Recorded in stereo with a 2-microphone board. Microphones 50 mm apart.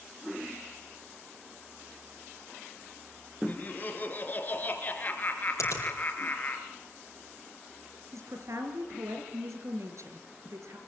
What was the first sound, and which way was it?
Laughter, 35° left (ahead or behind).